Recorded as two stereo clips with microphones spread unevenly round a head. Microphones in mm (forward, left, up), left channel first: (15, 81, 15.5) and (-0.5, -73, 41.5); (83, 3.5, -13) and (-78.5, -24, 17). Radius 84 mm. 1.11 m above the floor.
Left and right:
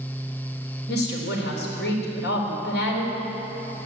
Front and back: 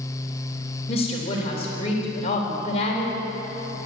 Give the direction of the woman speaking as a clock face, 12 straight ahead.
10 o'clock.